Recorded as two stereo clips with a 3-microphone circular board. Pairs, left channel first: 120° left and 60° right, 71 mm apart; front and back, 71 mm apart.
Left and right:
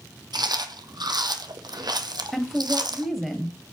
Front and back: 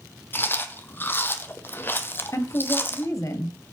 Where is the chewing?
60° right, 1.1 m.